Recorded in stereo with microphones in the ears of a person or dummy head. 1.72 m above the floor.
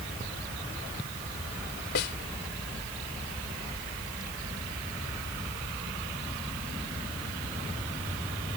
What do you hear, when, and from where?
1.9 s a snare drum: 45° left (ahead or behind)